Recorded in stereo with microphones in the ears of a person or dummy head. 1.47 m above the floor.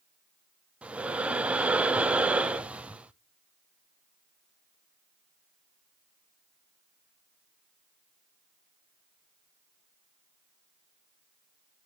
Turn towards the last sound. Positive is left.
turn(degrees=-5)  # may be behind; listen again after turning